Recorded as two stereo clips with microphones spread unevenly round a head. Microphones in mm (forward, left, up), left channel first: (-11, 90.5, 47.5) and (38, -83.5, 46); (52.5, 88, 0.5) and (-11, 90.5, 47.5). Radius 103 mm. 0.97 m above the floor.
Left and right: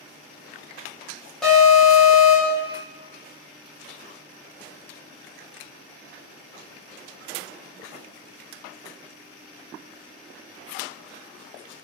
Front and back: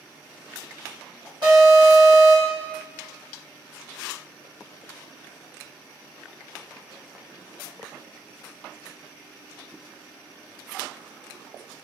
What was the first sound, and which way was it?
An alarm, 170° right.